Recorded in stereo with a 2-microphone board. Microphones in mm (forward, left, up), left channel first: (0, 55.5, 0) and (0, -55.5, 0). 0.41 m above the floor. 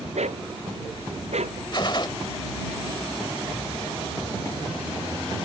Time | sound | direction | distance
0.1 | a dog barking | 85° right | ?
1.7 | a gunshot | 45° left (ahead or behind) | ?